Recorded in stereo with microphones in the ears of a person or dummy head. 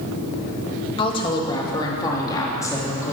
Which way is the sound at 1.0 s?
25° left (ahead or behind).